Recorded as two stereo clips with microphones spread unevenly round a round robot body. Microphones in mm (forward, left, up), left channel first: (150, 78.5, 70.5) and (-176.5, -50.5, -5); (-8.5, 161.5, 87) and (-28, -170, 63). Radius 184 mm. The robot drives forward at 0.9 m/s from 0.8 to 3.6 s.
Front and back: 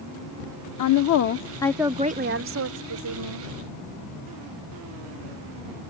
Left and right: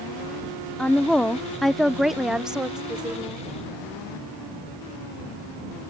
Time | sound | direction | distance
0.8 | a woman speaking | 5° right | ?